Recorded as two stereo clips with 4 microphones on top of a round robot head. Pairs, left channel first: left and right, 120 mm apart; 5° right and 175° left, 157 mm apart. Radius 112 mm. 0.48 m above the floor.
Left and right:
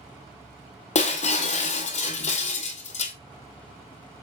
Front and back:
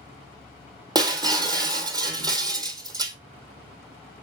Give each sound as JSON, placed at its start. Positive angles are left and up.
{"t": 0.9, "sound": "breaking glass", "azimuth_deg": 110, "distance_m": 1.4}